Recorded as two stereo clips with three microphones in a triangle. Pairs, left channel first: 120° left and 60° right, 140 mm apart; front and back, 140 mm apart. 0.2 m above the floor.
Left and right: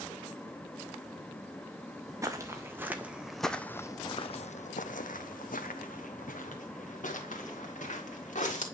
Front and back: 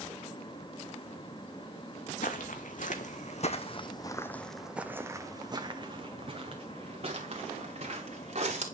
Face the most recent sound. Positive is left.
turn(degrees=145)